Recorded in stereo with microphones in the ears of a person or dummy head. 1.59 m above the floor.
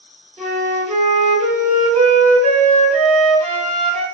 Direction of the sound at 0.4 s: 20° right (ahead or behind).